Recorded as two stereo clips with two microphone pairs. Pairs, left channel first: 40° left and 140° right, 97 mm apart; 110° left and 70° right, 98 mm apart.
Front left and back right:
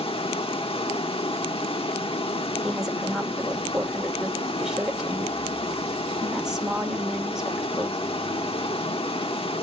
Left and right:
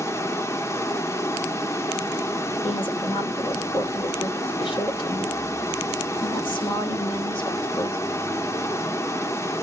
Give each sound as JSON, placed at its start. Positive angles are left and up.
{"t": 0.0, "sound": "running water", "azimuth_deg": 50, "distance_m": 1.2}
{"t": 2.6, "sound": "a woman speaking", "azimuth_deg": 135, "distance_m": 2.5}